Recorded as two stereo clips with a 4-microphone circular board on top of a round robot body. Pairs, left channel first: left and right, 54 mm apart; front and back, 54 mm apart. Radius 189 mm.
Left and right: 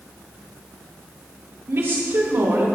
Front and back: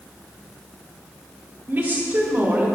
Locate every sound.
1.7 s a woman speaking: 130° right, 4 m